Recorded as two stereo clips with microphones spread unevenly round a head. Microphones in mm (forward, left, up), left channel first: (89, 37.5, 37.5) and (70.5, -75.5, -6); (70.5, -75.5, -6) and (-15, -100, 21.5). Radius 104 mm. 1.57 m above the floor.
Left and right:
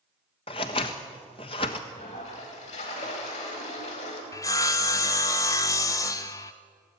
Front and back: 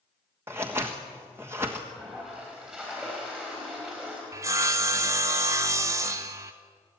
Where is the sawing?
140° left, 0.6 m.